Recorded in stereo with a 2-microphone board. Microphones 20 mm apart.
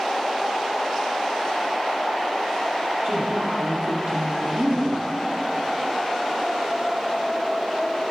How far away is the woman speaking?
About 5.5 m.